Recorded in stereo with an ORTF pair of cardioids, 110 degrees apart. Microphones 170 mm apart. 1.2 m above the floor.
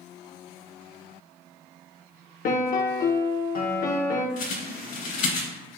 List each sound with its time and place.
2.5 s a piano: 60° left, 1.0 m
4.4 s a bird: 55° left, 1.8 m